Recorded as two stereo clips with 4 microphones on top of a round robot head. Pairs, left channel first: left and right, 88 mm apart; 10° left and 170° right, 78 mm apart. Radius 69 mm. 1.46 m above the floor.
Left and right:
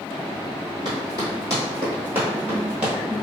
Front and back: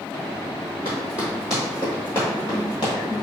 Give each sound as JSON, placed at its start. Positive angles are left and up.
{"t": 0.8, "sound": "running footsteps", "azimuth_deg": -105, "distance_m": 1.7}